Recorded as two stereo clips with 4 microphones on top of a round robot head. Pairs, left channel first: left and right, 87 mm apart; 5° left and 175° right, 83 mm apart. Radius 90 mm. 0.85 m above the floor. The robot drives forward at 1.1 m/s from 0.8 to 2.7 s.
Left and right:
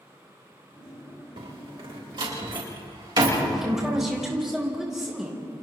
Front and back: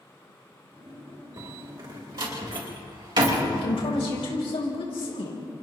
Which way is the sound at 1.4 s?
120° right.